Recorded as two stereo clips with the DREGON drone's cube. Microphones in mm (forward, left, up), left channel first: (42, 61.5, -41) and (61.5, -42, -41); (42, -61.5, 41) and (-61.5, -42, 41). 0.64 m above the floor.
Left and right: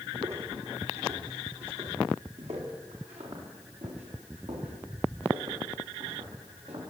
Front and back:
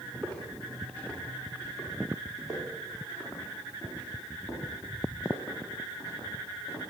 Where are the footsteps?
85° right, 8.5 m; by 6.8 s 70° right, 16 m.